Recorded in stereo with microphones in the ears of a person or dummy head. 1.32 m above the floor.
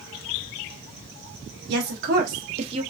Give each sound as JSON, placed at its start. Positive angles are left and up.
{"t": 1.7, "sound": "a woman speaking", "side_deg": -60, "distance_m": 1.1}